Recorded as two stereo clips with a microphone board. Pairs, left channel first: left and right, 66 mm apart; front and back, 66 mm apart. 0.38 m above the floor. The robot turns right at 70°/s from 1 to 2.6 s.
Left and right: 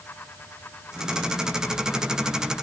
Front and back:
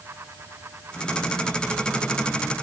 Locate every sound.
Only background noise.